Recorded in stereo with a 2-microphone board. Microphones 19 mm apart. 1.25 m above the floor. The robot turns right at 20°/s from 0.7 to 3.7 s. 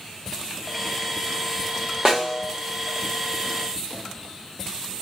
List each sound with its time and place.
2.0 s a snare drum: 30° right (ahead or behind), 1.3 m; by 2.5 s 25° right (ahead or behind), 1.3 m